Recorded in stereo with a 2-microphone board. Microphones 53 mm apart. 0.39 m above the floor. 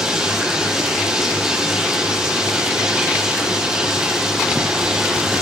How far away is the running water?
About 7 m.